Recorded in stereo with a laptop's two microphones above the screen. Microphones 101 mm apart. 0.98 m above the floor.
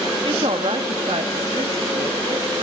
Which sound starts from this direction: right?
A woman speaking, at 0.2 s.